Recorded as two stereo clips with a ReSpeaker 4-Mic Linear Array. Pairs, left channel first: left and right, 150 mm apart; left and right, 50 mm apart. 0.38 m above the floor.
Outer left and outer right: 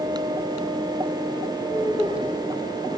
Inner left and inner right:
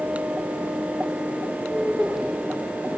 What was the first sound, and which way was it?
Laughter, 5° right (ahead or behind).